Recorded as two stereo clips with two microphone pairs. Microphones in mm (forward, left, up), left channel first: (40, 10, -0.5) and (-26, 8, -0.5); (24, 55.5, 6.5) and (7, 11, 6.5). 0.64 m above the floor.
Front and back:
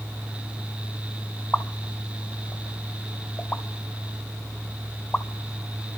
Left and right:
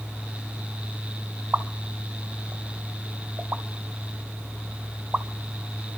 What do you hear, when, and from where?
1.5 s a pop: 65° right, 0.5 m